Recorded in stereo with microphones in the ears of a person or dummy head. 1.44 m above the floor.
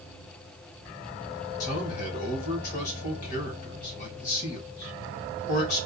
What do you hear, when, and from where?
1.6 s a man speaking: 50° left (ahead or behind), 2.5 m